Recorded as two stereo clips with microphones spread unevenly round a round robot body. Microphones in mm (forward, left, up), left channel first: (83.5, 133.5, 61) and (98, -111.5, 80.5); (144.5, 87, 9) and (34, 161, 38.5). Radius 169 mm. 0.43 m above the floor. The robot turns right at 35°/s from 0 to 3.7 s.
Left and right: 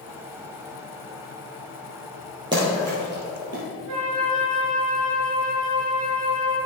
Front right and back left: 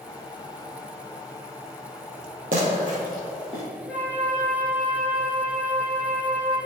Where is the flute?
120° right, 1.7 m.